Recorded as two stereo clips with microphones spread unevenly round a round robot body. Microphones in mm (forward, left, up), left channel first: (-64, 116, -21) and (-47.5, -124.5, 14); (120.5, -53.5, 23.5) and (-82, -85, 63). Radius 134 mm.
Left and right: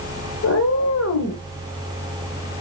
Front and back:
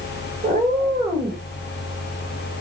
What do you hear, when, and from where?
0.4 s a cat meowing: 125° left, 2 m